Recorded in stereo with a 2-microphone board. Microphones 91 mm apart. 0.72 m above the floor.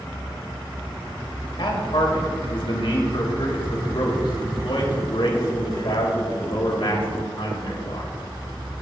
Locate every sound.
1.6 s a man speaking: 70° left (ahead or behind), 3 m